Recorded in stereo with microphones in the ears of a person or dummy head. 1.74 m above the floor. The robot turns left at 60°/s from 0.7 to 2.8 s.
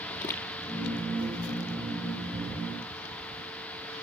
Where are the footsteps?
15° left (ahead or behind), 2 m.